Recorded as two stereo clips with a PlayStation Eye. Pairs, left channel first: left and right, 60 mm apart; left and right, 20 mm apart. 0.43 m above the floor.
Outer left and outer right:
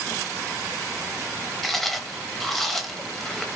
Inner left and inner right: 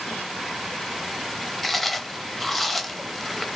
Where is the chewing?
5° left (ahead or behind), 0.6 m.